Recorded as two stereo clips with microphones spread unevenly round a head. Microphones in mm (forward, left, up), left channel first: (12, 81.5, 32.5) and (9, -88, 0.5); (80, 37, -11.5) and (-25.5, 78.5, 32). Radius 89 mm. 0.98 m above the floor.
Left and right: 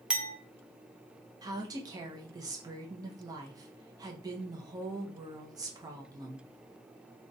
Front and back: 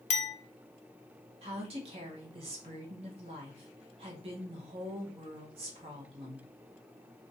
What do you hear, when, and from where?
0.1 s a clink: 10° right, 0.6 m
1.4 s a woman speaking: 145° right, 0.6 m